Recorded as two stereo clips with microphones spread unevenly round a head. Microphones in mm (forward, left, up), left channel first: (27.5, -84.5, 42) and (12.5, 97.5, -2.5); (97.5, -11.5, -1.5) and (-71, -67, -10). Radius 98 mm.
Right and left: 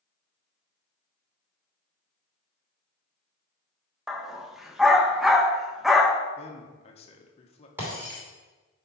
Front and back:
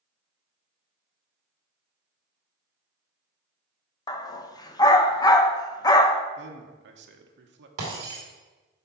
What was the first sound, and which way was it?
A dog barking, 20° right.